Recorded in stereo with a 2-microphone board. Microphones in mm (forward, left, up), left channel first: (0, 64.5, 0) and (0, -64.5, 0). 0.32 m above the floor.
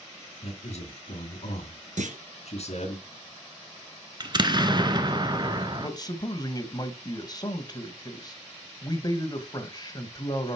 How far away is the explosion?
About 0.9 m.